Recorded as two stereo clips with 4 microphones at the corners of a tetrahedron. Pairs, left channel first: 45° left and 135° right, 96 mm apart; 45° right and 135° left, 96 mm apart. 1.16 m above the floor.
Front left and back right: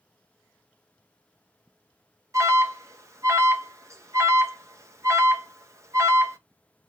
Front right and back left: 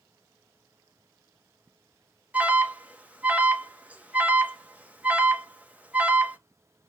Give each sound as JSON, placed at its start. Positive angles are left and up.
{"t": 2.3, "sound": "an alarm", "azimuth_deg": -160, "distance_m": 1.1}